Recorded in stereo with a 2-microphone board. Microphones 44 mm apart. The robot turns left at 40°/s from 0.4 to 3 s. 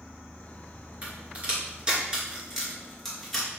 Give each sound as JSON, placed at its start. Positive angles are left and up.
{"t": 1.0, "sound": "a crack", "side_deg": -30, "distance_m": 1.9}